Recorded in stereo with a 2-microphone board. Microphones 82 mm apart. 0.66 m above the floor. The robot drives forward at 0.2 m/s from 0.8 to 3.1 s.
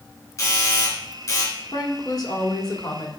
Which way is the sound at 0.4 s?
45° left (ahead or behind).